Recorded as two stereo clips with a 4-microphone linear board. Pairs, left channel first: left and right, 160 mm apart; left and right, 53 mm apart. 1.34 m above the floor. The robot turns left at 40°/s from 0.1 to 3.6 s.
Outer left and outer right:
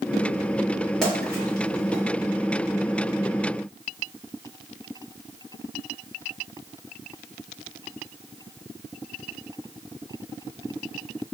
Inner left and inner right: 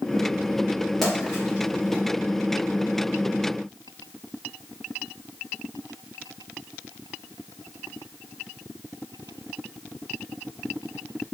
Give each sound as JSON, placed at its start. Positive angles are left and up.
{"t": 1.0, "sound": "a splash", "side_deg": 5, "distance_m": 1.7}